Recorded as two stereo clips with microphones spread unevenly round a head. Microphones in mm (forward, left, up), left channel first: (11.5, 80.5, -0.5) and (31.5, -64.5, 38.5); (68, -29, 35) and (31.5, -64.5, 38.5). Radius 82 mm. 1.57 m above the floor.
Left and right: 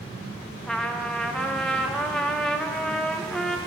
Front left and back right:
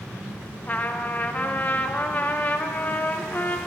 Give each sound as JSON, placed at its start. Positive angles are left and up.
{"t": 0.6, "sound": "a trumpet", "azimuth_deg": -5, "distance_m": 0.8}